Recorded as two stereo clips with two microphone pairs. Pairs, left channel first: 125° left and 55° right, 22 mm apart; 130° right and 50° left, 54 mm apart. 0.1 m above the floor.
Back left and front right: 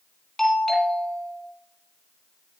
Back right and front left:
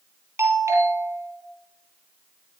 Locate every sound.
0.4 s a doorbell: 65° left, 3.5 m